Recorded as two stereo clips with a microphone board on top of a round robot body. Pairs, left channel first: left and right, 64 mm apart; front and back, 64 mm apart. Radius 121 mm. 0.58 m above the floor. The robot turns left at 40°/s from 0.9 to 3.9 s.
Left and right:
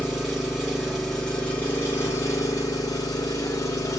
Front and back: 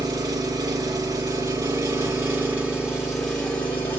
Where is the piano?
I don't hear a piano.